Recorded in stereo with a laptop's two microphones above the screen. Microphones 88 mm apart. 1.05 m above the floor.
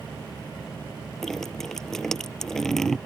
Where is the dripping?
5° left (ahead or behind).